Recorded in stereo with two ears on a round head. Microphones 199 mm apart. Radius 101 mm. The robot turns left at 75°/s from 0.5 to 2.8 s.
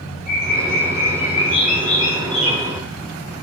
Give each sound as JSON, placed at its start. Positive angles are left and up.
{"t": 0.3, "sound": "a bird", "azimuth_deg": 140, "distance_m": 9.0}